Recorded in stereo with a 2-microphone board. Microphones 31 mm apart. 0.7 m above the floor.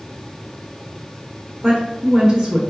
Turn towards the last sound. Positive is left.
turn(degrees=-15)  # may be behind; listen again after turning